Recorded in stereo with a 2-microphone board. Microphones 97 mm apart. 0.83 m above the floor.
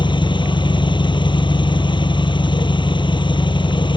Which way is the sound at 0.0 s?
55° left (ahead or behind).